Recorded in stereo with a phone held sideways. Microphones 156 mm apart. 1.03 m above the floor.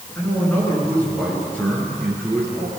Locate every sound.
0.1 s a man speaking: 10° left (ahead or behind), 10 m; by 2.8 s centre (ahead or behind), 10.5 m